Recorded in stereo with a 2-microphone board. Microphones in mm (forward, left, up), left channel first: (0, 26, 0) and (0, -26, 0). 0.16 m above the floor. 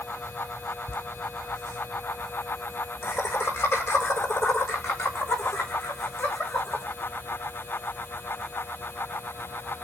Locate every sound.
0.9 s laughter: 40° left (ahead or behind), 7 m; by 6.8 s 65° left (ahead or behind), 9.5 m